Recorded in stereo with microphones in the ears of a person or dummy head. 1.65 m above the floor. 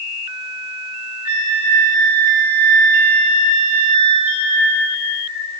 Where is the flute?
25° left (ahead or behind), 3 m.